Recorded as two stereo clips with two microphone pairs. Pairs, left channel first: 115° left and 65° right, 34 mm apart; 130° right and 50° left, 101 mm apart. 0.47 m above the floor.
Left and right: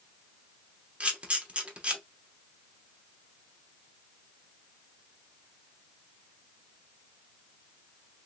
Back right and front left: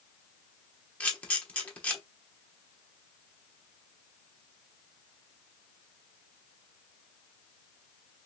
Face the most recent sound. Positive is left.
turn(degrees=-65)